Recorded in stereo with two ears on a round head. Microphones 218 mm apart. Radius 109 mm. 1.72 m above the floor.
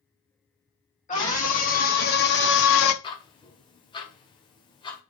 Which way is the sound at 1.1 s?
30° left (ahead or behind).